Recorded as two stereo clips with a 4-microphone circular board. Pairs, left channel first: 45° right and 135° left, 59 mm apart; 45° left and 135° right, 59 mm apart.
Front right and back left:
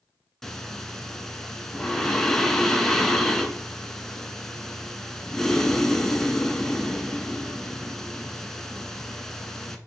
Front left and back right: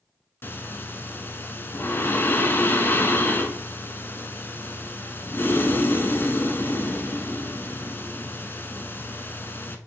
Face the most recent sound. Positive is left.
turn(degrees=35)